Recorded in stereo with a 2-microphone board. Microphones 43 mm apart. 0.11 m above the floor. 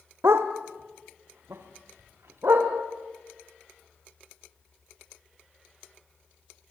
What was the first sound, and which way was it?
A dog barking, 75° right (ahead or behind).